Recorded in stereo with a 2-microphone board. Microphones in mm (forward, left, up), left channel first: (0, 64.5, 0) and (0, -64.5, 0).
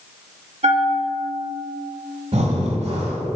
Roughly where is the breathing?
Right.